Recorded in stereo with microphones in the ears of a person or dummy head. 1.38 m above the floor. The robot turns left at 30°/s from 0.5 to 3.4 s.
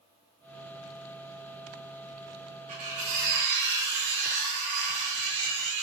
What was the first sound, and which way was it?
Cutlery clinking, 40° right (ahead or behind).